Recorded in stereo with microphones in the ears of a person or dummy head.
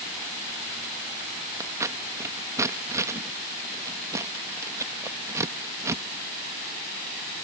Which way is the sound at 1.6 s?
15° right (ahead or behind).